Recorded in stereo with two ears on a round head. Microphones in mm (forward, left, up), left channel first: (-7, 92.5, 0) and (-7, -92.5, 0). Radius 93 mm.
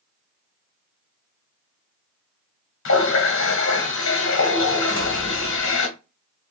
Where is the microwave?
No microwave in this recording.